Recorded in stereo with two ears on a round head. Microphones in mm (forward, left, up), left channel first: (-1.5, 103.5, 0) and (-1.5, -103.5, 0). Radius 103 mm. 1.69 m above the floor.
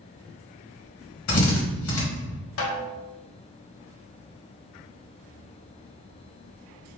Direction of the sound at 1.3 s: 70° left (ahead or behind).